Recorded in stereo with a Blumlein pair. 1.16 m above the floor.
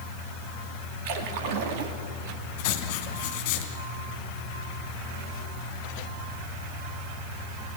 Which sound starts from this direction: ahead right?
A splash, at 1.1 s.